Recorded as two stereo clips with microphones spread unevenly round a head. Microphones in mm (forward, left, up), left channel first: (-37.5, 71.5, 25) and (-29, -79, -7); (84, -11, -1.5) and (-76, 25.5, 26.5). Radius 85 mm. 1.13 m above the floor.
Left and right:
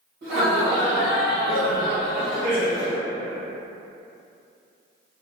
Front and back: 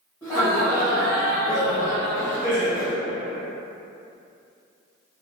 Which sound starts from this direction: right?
Laughter, at 0.2 s.